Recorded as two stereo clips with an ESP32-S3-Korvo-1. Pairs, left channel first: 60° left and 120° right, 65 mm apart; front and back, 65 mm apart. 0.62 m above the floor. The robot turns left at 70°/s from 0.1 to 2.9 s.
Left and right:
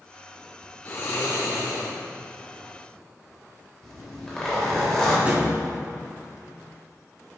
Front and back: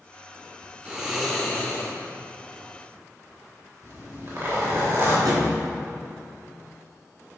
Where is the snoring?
115° left, 2 m; by 1.9 s 40° left, 2 m.